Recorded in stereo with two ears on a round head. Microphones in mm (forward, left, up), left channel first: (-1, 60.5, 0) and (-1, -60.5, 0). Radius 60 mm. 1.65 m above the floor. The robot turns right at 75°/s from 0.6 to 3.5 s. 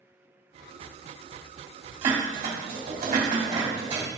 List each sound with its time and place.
2.0 s dishes clattering: 20° right (ahead or behind), 3 m; by 4.1 s 45° right (ahead or behind), 3 m